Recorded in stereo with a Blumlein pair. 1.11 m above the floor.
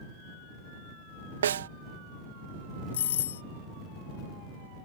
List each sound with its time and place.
1.4 s a snare drum: 65° right
2.9 s a doorbell: 60° left